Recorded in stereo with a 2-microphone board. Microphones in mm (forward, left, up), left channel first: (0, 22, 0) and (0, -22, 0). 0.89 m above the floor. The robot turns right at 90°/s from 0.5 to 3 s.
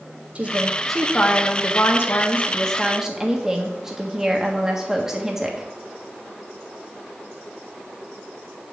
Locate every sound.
0.3 s a woman speaking: 35° right, 1.4 m; by 5.7 s 170° right, 1.4 m